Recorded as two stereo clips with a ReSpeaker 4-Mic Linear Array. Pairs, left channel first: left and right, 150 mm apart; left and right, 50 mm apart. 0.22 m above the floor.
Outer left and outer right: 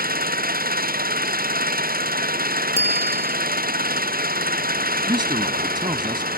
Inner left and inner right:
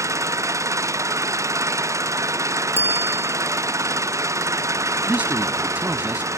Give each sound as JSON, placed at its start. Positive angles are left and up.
{"t": 0.0, "sound": "an engine running", "side_deg": -75}
{"t": 2.8, "sound": "a bicycle bell", "side_deg": -45}
{"t": 5.1, "sound": "a man speaking", "side_deg": -30}